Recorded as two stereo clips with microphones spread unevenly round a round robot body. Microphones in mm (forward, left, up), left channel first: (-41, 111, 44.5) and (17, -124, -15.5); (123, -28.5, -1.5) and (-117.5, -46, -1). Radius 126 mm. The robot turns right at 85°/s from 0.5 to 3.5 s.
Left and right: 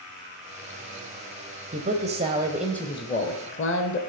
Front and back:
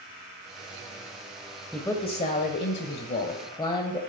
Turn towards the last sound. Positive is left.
turn(degrees=70)